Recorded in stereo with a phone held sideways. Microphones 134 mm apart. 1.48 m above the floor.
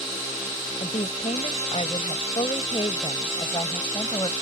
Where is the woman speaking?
60° left (ahead or behind); by 4.3 s 35° left (ahead or behind).